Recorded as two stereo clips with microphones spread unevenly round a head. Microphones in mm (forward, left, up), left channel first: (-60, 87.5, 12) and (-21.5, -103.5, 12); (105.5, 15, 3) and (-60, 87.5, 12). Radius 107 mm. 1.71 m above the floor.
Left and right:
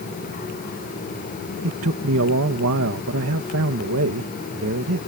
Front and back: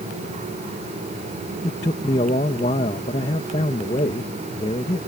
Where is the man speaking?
90° right.